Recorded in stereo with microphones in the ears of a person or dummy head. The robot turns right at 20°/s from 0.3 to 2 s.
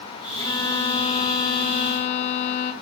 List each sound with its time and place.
0.4 s a violin: 25° left, 4 m; by 2.7 s 55° left, 4 m